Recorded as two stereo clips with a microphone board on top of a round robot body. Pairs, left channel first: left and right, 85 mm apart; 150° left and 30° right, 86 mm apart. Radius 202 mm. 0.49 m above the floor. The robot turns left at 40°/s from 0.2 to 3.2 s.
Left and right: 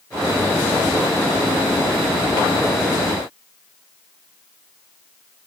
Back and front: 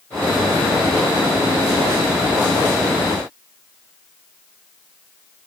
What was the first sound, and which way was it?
Only background noise.